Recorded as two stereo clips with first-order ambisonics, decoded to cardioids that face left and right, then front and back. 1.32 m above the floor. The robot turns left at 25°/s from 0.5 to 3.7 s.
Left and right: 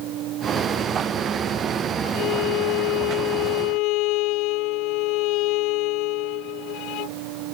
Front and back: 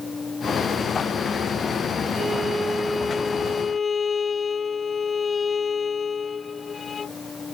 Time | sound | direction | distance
2.1 | a violin | 110° left | ?